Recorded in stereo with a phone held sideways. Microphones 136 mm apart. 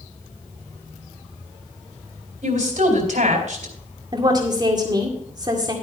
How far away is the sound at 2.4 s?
About 4 m.